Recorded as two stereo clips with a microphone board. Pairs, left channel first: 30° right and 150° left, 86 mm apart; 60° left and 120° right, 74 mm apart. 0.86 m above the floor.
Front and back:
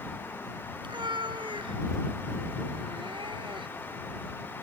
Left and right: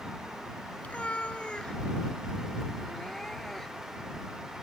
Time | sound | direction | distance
0.8 | a cat meowing | 130° left | ?